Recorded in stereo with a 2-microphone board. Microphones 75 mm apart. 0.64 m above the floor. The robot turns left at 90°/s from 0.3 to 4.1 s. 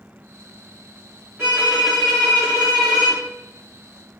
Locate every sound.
1.4 s a violin: 130° right, 1.2 m; by 3.2 s 65° left, 1.2 m